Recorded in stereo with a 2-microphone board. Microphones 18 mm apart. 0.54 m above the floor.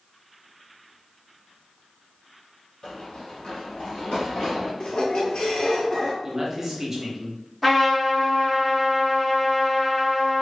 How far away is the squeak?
About 0.9 m.